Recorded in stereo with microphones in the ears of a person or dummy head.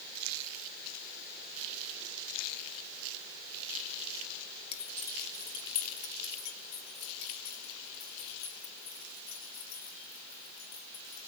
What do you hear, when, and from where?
4.7 s keys jangling: 45° left (ahead or behind), 1.3 m; by 11.2 s 75° left (ahead or behind), 6 m